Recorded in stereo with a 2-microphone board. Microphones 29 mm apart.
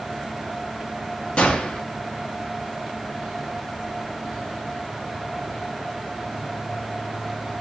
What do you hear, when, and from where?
1.4 s a gunshot: 35° left (ahead or behind), 1.1 m